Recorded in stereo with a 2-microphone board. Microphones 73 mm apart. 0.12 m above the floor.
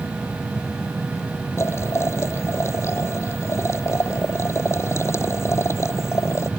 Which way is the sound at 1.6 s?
35° left (ahead or behind).